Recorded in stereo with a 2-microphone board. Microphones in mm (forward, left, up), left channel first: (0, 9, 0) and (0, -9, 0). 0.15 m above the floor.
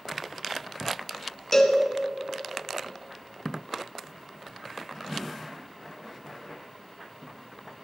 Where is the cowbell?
25° left (ahead or behind), 1.4 m.